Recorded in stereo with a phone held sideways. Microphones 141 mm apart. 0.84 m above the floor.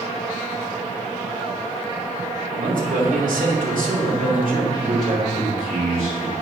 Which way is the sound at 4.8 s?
75° right (ahead or behind).